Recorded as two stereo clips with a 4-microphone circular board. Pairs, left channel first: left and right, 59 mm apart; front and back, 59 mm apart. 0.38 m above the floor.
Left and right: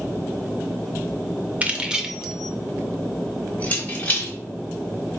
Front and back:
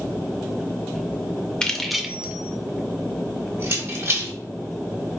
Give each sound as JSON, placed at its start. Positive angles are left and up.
{"t": 1.6, "sound": "keys jangling", "azimuth_deg": -60, "distance_m": 0.6}